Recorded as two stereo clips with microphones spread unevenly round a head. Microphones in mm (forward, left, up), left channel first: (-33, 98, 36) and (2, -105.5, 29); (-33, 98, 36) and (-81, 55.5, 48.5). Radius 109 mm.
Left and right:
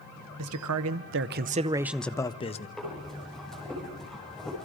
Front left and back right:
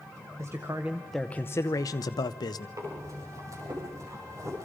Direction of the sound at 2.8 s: 170° right.